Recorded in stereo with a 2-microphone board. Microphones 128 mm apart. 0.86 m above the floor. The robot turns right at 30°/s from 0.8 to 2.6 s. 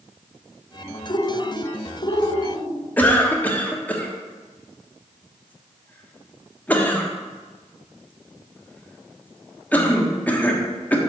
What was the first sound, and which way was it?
A bird, 60° left.